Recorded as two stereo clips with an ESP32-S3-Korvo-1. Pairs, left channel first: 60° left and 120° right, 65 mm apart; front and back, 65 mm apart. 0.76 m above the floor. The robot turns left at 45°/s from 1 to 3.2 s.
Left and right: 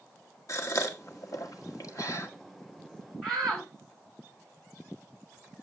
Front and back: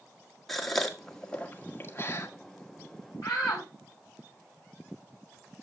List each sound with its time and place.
0.5 s a gasp: 85° left, 1.7 m; by 2.3 s 30° left, 1.7 m
3.2 s a shout: 25° right, 6.5 m